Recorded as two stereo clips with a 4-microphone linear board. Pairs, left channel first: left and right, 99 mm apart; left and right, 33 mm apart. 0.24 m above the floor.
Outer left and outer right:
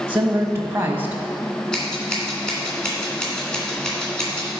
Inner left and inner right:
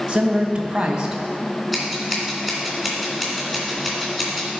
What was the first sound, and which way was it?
A woman speaking, 25° right (ahead or behind).